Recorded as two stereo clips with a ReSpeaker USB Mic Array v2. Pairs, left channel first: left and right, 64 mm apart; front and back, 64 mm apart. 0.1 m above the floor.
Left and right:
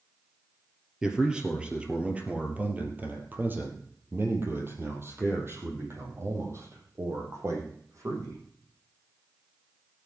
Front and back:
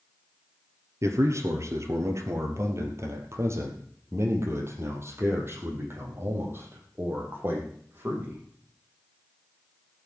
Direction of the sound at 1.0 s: 170° right.